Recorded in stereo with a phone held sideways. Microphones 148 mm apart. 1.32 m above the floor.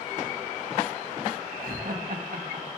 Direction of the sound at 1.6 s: 70° right (ahead or behind).